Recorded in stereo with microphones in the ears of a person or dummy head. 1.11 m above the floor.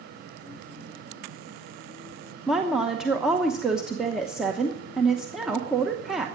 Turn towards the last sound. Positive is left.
turn(degrees=-10)  # may be behind; listen again after turning